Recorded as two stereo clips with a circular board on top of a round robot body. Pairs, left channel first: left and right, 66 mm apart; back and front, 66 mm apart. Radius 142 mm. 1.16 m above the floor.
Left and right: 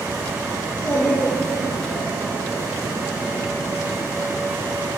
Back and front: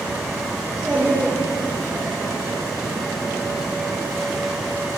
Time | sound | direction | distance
0.6 | a child speaking | 85° left | 3 m